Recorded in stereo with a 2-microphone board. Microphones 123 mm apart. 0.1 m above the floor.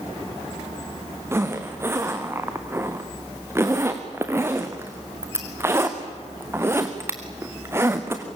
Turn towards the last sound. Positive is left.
turn(degrees=-20)  # may be behind; listen again after turning